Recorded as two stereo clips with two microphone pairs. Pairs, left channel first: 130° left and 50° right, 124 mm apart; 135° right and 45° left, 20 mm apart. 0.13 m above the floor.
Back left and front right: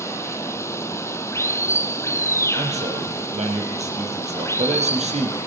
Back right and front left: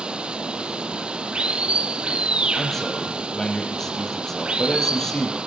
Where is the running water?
65° left, 0.7 m.